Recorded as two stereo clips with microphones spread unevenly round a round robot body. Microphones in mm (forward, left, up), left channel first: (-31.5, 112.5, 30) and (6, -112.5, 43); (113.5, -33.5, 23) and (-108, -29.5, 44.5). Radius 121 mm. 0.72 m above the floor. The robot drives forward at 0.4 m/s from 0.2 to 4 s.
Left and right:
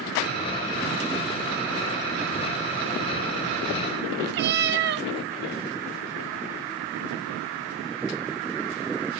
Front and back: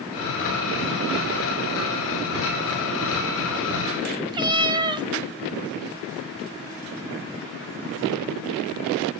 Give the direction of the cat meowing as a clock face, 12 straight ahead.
4 o'clock.